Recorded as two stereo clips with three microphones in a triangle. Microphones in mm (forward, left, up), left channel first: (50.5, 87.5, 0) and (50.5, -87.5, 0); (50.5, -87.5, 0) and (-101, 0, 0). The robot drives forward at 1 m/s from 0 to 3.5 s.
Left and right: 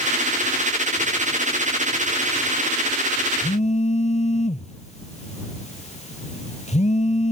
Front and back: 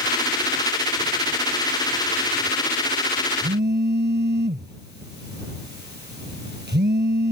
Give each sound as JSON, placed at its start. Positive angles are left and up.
{"t": 3.4, "sound": "a phone buzzing", "azimuth_deg": 135}